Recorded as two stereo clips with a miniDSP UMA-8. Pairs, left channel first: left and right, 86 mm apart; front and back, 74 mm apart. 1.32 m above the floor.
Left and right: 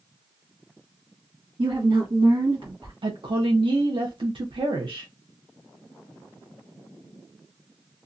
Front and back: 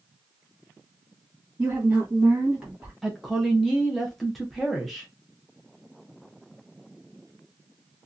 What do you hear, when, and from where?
1.6 s a woman speaking: 105° right, 1.0 m
3.0 s a woman speaking: 90° right, 0.6 m